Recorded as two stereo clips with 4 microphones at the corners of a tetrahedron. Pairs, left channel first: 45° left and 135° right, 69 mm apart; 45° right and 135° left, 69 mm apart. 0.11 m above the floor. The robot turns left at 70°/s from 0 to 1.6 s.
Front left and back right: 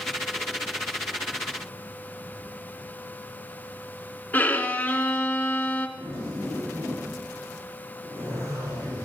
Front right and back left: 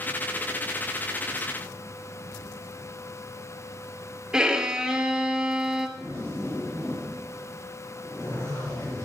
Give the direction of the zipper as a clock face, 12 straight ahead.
3 o'clock.